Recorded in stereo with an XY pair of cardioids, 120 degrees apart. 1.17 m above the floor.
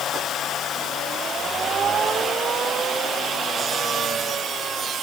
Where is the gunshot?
I don't hear a gunshot.